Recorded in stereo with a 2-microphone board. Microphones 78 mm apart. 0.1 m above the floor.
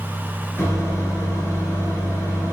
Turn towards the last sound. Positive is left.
turn(degrees=35)  # may be behind; listen again after turning